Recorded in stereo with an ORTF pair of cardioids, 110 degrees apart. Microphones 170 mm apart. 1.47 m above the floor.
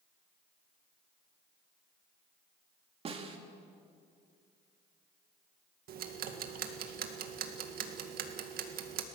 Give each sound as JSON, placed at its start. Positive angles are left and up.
{"t": 3.0, "sound": "a snare drum", "azimuth_deg": -35, "distance_m": 2.5}
{"t": 5.9, "sound": "ticking", "azimuth_deg": -65, "distance_m": 2.0}